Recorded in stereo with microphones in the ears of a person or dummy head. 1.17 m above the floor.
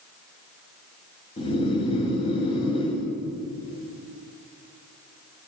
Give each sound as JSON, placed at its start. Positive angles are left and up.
{"t": 1.4, "sound": "snoring", "side_deg": 25, "distance_m": 1.7}